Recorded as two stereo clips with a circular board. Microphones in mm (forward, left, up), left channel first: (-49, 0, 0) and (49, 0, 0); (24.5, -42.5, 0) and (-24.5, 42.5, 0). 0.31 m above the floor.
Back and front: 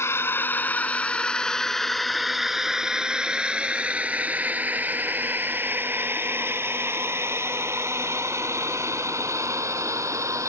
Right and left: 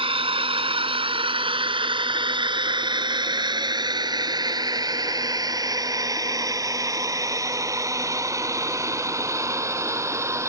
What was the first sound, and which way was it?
A drone, 120° left.